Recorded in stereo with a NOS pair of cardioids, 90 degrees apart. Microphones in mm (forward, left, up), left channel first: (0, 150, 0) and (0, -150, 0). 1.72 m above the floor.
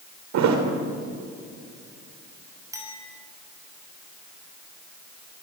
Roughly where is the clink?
Ahead.